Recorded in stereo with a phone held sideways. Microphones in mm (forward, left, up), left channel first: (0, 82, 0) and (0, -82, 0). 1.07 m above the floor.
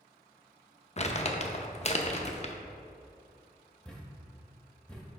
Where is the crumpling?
40° left (ahead or behind), 0.5 m.